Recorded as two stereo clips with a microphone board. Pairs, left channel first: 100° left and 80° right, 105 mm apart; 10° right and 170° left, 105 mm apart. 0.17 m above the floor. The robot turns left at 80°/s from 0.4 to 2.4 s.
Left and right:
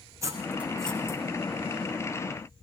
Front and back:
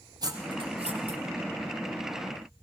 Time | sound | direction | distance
0.2 | cutlery clinking | 140° right | 4.5 m